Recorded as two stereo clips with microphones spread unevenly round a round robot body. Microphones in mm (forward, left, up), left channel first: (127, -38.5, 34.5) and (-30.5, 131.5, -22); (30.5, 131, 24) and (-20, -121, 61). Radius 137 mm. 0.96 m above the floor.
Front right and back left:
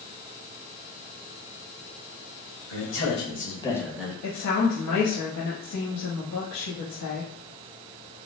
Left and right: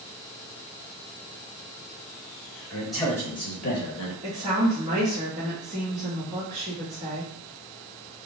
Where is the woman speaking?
35° right, 1.0 m.